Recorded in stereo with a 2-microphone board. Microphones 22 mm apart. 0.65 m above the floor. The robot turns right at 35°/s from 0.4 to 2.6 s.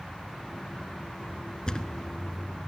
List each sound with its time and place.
1.7 s a thud: 30° left (ahead or behind), 0.6 m